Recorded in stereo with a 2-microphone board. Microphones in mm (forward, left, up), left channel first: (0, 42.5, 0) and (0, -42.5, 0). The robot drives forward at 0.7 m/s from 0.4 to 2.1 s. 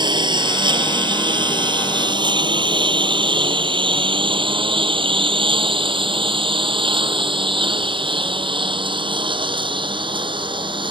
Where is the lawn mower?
60° right (ahead or behind); by 10.9 s 75° right (ahead or behind).